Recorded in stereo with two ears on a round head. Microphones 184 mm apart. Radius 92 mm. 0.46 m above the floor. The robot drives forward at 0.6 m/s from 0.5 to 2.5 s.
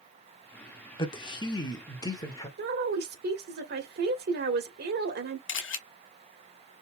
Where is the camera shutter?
70° left (ahead or behind), 1.3 m.